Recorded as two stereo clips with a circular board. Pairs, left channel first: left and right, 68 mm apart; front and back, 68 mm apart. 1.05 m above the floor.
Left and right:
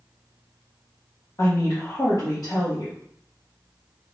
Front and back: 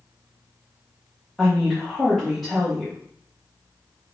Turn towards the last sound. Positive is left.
turn(degrees=90)